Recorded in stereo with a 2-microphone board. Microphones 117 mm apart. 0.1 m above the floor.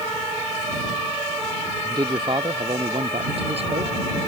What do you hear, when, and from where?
1.8 s a man speaking: 35° right (ahead or behind); by 3.9 s 60° right (ahead or behind)